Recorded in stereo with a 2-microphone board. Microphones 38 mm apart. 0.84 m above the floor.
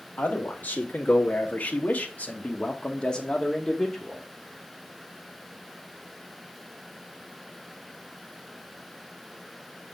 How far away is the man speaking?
About 2.0 m.